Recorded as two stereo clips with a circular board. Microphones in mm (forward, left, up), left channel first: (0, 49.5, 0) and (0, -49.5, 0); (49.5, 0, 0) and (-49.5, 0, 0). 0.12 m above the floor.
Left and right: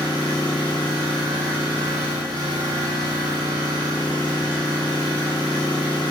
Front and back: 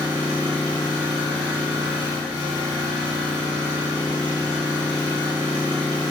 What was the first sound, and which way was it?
An engine running, 160° left.